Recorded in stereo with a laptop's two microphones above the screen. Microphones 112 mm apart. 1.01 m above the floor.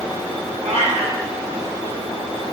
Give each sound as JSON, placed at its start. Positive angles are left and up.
{"t": 0.6, "sound": "a cat meowing", "side_deg": -70, "distance_m": 3.0}